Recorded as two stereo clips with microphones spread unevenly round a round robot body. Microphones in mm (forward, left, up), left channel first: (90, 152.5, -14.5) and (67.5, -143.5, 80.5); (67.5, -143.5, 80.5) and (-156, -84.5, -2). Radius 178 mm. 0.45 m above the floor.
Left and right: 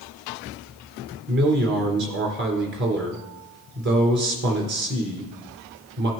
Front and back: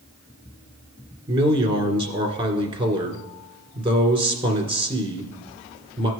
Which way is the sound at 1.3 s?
160° right.